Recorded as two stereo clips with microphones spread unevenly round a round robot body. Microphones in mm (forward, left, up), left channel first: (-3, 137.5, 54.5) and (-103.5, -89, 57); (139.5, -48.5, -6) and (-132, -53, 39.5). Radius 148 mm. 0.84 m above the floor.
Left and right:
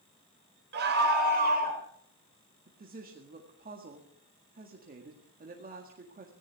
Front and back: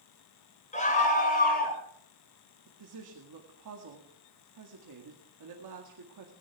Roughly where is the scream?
Ahead right.